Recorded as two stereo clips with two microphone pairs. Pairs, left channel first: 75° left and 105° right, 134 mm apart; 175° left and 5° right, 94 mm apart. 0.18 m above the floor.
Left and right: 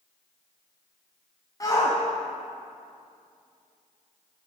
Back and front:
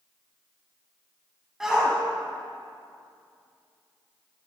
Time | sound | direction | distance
1.6 | a shout | 75° left | 1.2 m